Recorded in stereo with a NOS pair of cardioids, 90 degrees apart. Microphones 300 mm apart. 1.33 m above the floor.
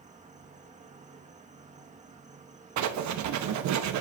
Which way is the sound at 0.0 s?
25° right.